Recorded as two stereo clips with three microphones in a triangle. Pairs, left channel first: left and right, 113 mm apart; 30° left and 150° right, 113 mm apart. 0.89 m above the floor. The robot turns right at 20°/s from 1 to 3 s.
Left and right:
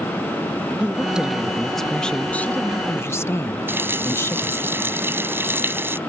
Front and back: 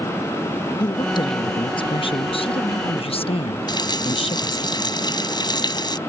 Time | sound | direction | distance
0.8 | a woman speaking | 10° right | ?
3.7 | a running tap | 20° right | ?